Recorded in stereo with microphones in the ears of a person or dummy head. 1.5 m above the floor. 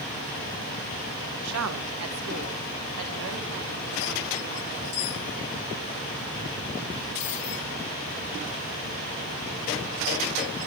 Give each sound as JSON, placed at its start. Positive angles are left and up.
{"t": 1.4, "sound": "a woman speaking", "side_deg": -80, "distance_m": 1.6}